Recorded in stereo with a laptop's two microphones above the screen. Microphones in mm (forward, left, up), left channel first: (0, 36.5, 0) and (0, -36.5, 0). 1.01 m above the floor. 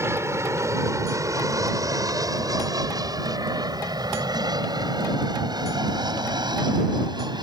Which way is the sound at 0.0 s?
35° right (ahead or behind).